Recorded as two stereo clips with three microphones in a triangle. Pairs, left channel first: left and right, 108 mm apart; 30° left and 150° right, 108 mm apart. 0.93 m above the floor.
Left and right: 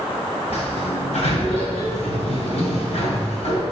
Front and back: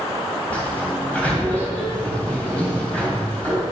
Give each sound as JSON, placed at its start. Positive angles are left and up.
{"t": 0.5, "sound": "a sliding door", "azimuth_deg": 110, "distance_m": 2.5}